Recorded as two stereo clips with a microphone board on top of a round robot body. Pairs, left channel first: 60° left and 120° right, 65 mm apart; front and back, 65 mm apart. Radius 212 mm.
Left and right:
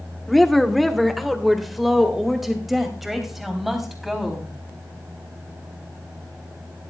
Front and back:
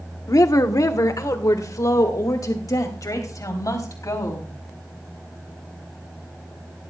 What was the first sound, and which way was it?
A woman speaking, 25° right.